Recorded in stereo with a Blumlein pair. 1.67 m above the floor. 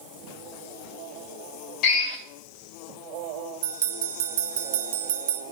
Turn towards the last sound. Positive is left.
turn(degrees=-55)